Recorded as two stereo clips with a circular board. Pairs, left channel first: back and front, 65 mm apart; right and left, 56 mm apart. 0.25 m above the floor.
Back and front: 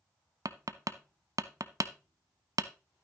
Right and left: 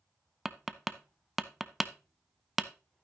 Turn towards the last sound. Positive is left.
turn(degrees=5)